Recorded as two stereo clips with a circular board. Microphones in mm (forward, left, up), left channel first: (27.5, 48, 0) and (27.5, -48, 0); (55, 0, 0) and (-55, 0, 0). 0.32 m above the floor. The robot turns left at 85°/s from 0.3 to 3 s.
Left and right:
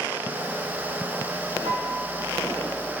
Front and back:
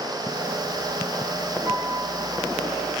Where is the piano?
100° right, 4.5 m; by 2.5 s straight behind, 4.5 m.